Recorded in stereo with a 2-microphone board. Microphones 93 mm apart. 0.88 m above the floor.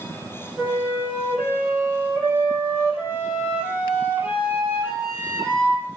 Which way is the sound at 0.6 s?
20° right (ahead or behind).